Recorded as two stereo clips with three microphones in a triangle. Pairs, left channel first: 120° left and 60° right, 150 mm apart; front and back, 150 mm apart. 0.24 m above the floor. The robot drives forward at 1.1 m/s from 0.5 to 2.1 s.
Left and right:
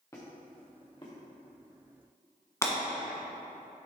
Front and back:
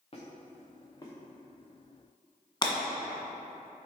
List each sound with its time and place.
0.1 s a squeak: 50° left, 2.5 m; by 1.1 s 65° left, 2 m
2.6 s breaking glass: 55° left, 1.4 m